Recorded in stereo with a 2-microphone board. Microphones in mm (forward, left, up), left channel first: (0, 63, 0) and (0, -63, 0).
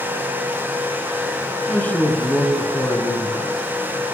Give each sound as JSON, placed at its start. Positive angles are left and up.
{"t": 1.7, "sound": "a man speaking", "side_deg": 15, "distance_m": 4.0}